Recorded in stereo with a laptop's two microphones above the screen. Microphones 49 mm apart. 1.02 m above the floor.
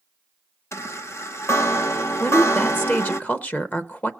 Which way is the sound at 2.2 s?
35° left (ahead or behind).